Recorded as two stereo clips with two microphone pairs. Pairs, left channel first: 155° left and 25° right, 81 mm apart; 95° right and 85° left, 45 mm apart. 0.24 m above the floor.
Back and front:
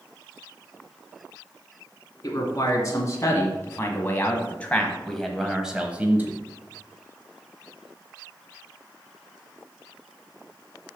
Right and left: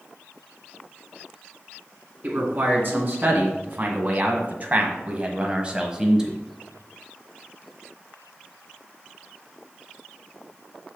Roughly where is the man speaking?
Behind left.